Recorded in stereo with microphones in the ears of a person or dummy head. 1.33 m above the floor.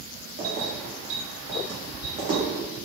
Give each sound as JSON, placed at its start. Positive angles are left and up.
{"t": 0.4, "sound": "keys jangling", "side_deg": -55, "distance_m": 1.3}